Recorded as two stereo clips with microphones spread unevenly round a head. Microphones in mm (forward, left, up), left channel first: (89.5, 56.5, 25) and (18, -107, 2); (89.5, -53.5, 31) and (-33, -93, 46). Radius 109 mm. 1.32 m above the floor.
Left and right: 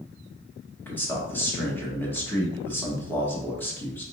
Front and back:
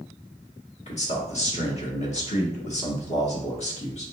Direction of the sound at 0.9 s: 15° right.